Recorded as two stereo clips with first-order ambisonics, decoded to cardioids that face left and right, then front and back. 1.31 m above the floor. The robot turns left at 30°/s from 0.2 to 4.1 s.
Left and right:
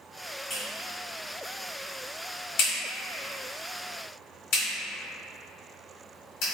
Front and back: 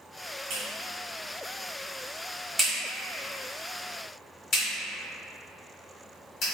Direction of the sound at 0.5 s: 160° left.